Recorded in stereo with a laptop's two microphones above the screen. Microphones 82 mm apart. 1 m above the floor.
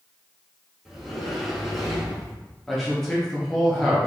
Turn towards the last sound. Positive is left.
turn(degrees=5)  # may be behind; listen again after turning